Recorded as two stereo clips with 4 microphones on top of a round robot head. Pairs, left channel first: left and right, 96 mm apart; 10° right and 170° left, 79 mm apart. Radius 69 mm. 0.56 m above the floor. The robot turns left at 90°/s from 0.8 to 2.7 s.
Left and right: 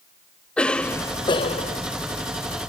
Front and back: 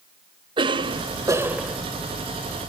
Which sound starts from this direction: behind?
A cough, at 0.6 s.